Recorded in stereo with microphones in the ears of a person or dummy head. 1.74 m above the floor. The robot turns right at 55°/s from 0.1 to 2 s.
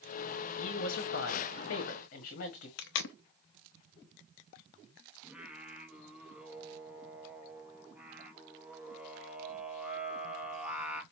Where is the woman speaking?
60° left, 1.6 m; by 2.7 s 135° left, 1.6 m.